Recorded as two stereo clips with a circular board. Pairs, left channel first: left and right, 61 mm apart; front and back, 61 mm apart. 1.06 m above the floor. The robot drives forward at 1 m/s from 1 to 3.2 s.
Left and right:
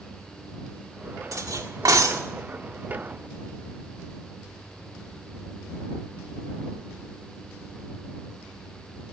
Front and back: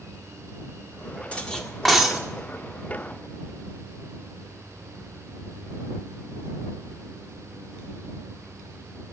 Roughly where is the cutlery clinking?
Right.